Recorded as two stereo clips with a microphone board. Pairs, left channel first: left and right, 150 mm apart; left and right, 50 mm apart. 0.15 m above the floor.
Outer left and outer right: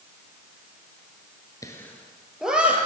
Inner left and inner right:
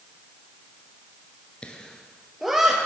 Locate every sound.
1.6 s laughter: 25° left (ahead or behind), 1.8 m; by 2.9 s 10° right (ahead or behind), 3 m